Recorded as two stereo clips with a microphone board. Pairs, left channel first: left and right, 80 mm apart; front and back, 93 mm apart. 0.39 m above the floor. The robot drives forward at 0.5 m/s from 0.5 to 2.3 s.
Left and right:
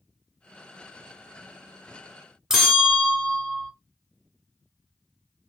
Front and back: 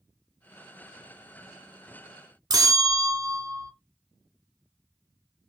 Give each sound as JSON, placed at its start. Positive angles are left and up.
{"t": 2.5, "sound": "a bell", "azimuth_deg": -170, "distance_m": 0.8}